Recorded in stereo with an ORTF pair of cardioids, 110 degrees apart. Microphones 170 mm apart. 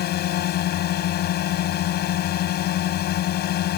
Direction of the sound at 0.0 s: 65° left.